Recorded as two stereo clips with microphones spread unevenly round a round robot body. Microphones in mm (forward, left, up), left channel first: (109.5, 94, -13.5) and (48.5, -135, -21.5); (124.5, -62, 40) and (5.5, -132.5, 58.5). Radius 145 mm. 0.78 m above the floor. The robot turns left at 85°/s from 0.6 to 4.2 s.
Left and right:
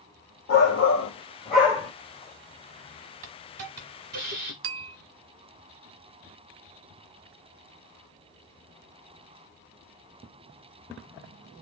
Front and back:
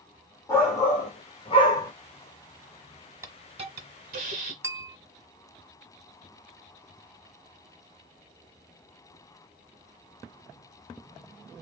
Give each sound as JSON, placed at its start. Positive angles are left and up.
{"t": 0.5, "sound": "a shout", "azimuth_deg": 95, "distance_m": 1.4}
{"t": 3.2, "sound": "a hiss", "azimuth_deg": -85, "distance_m": 1.2}
{"t": 4.6, "sound": "a bell", "azimuth_deg": -85, "distance_m": 0.5}